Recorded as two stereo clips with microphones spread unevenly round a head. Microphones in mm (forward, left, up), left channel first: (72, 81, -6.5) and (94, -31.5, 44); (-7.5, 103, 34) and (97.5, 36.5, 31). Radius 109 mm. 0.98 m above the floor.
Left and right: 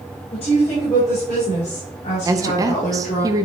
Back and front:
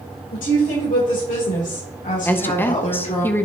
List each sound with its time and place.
0.3 s a woman speaking: 155° left, 3.5 m; by 3.2 s 125° left, 3 m
2.2 s a woman speaking: 160° right, 0.6 m